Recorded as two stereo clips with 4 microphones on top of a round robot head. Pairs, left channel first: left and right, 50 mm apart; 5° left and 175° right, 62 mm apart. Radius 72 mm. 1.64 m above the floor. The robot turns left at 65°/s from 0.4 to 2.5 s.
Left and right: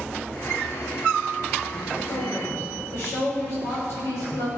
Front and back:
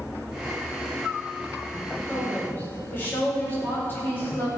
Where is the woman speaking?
85° left, 6.5 m; by 4.5 s 60° left, 6.5 m.